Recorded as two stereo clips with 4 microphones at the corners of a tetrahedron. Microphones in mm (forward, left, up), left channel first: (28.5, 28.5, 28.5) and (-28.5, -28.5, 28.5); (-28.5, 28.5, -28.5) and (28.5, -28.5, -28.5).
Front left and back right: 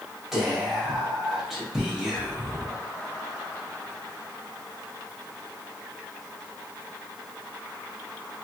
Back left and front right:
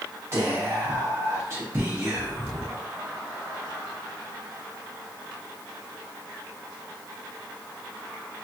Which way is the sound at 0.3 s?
50° right.